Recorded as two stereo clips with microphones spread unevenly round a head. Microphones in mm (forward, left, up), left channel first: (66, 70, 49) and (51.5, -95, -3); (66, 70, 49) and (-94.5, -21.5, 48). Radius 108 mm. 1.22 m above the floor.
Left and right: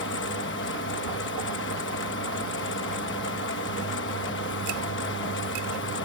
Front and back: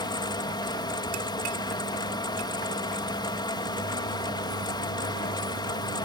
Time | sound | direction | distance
0.0 | a fan | 95° left | ?